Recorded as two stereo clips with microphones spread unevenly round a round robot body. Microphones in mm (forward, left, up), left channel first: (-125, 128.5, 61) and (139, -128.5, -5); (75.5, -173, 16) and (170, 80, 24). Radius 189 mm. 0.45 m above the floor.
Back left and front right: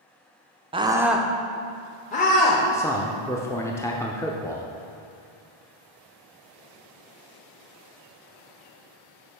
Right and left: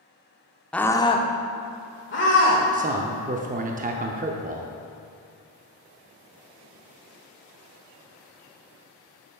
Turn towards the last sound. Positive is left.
turn(degrees=40)